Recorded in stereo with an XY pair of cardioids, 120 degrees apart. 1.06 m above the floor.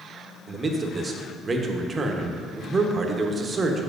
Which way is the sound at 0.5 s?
30° right.